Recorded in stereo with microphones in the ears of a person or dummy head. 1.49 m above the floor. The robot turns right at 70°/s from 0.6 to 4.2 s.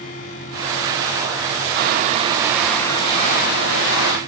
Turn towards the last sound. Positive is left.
turn(degrees=110)